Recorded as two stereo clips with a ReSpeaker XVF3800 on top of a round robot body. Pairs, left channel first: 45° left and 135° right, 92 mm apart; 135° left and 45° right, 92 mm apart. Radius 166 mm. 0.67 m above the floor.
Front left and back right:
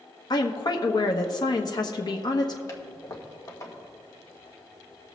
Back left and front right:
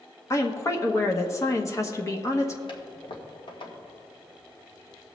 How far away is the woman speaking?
About 1.1 m.